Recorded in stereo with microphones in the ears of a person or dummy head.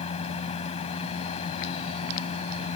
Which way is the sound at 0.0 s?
40° left (ahead or behind).